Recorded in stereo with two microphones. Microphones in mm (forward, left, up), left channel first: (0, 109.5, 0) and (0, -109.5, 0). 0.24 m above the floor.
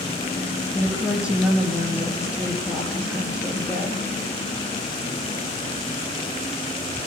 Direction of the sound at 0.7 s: 5° right (ahead or behind).